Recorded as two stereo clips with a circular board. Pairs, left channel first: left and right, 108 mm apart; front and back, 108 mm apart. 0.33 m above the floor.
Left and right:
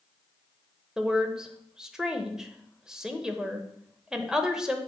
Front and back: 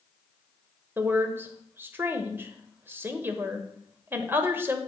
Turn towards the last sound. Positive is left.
turn(degrees=-160)